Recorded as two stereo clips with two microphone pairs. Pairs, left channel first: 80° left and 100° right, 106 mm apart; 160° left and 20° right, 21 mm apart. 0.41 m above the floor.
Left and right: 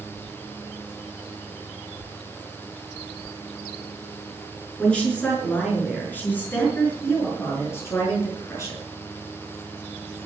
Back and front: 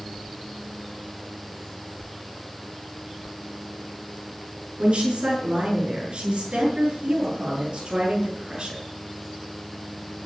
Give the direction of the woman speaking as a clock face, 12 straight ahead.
12 o'clock.